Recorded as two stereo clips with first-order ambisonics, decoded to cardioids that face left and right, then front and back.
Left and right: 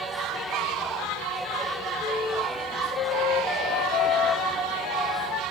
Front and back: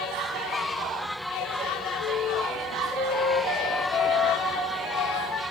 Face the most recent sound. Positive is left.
turn(degrees=40)